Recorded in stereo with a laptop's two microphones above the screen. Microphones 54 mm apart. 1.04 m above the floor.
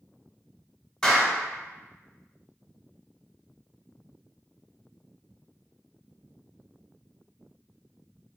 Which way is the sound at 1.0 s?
10° left (ahead or behind).